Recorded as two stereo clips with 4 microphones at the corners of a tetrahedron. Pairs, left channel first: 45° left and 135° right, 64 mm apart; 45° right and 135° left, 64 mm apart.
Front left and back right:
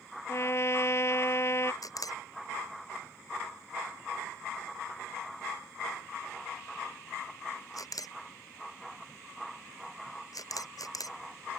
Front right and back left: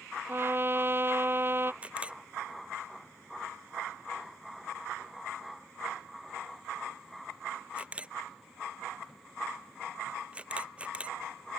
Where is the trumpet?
85° left.